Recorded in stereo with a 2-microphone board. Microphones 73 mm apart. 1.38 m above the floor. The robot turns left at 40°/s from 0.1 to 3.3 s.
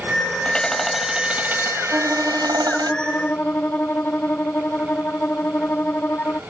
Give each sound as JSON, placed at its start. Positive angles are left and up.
{"t": 0.5, "sound": "hammering", "azimuth_deg": 15}
{"t": 1.9, "sound": "a violin", "azimuth_deg": -150}